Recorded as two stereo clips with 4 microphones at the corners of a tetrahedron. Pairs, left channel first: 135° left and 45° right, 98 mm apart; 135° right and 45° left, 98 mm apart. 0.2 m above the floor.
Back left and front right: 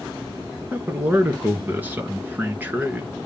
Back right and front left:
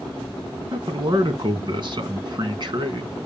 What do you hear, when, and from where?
0.7 s a man speaking: 20° left, 2.5 m